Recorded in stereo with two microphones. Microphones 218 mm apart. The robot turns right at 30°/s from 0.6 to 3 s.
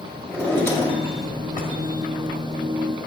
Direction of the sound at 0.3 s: 10° left.